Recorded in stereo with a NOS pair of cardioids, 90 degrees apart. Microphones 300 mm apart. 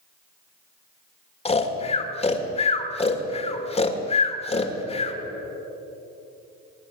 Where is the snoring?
20° left, 1.5 m.